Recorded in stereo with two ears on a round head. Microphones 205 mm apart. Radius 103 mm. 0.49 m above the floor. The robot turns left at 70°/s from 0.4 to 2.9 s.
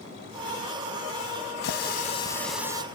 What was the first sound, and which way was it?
A running tap, 60° left.